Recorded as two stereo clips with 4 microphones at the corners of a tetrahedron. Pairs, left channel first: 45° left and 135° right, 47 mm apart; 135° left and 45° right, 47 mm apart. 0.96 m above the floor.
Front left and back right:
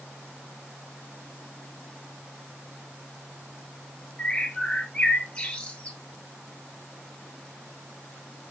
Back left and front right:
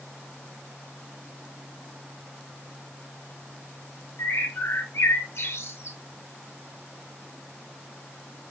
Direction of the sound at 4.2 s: 110° left.